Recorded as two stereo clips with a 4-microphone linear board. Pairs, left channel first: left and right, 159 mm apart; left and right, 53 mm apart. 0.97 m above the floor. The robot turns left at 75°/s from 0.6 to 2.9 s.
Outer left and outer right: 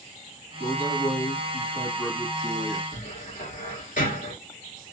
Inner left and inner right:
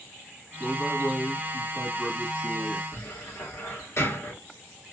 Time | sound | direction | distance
0.6 | a man speaking | 140° left | 1.3 m
2.9 | a cupboard door | 65° left (ahead or behind) | 2 m